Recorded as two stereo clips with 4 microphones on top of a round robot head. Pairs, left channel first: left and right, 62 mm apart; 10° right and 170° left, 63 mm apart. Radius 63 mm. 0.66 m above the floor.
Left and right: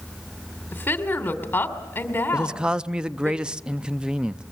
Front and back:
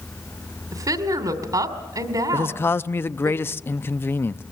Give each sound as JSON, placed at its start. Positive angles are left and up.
{"t": 0.7, "sound": "a woman speaking", "azimuth_deg": 150, "distance_m": 2.5}
{"t": 2.3, "sound": "a man speaking", "azimuth_deg": -25, "distance_m": 0.5}